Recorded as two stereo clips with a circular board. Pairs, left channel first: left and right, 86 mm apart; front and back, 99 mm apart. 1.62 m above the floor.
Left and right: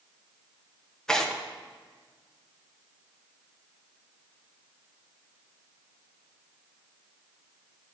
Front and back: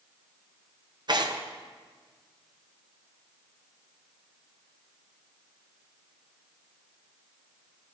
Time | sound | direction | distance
1.1 | tearing paper | 170° left | 0.7 m